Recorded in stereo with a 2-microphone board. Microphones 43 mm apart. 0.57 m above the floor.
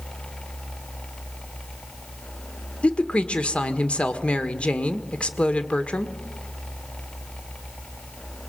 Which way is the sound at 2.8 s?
30° left (ahead or behind).